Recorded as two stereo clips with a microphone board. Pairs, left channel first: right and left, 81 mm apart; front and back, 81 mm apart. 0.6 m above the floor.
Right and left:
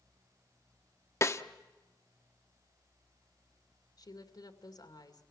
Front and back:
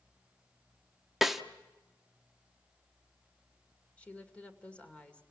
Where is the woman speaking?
70° right, 2 m.